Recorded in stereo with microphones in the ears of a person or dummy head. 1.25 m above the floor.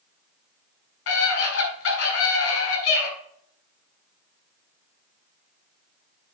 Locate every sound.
1.1 s a scream: 70° left (ahead or behind), 5.5 m